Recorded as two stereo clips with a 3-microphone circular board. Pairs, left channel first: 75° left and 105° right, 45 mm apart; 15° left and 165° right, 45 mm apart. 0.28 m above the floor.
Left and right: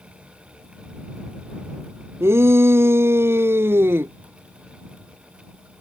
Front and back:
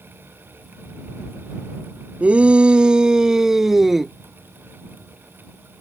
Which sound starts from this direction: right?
A shout, at 2.2 s.